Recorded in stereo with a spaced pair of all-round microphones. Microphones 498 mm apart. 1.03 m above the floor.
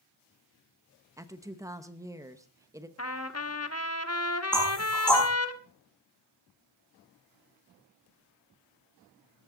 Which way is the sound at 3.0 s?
30° left (ahead or behind).